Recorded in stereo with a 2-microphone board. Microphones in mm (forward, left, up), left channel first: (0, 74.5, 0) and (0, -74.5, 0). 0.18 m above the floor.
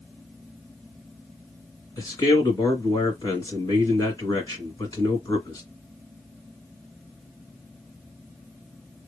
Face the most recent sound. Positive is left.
turn(degrees=25)  # may be behind; listen again after turning